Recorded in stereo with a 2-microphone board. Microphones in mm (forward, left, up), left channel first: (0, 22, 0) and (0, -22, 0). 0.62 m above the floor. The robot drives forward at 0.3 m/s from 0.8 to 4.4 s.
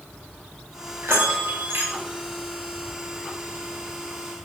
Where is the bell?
70° right (ahead or behind), 0.8 m; by 1.9 s 60° right (ahead or behind), 0.9 m.